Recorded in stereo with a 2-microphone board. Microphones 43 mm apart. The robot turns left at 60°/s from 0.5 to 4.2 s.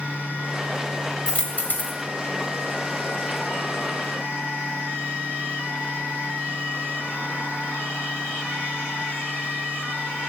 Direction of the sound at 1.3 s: 155° left.